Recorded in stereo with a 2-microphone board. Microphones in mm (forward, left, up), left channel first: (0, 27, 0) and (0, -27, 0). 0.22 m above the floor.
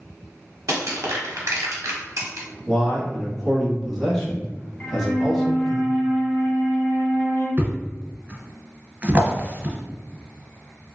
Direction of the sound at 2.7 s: 5° left (ahead or behind).